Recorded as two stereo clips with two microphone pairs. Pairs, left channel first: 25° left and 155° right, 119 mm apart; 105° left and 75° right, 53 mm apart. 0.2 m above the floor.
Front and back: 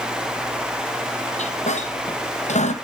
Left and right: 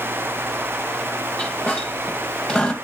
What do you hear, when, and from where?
1.4 s a squeak: 35° left, 1.7 m